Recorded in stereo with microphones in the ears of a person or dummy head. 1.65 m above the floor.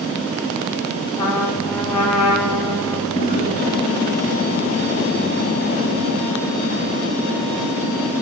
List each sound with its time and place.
1.2 s a trumpet: 30° left (ahead or behind), 1.4 m
3.1 s a drawer: 45° left (ahead or behind), 1.8 m